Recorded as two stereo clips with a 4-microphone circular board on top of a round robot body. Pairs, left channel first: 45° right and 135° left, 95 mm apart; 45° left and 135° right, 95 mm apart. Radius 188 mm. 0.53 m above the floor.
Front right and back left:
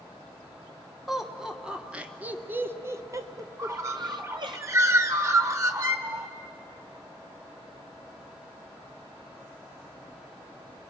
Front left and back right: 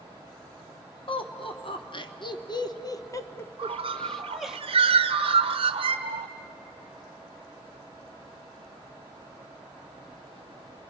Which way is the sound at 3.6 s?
165° right.